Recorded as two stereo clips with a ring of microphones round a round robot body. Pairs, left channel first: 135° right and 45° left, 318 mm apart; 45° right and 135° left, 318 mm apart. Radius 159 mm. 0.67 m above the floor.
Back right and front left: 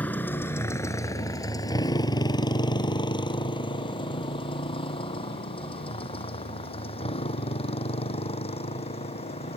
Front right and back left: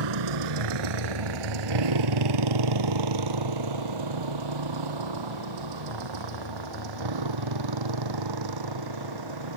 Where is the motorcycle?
140° left; by 9.6 s 155° left.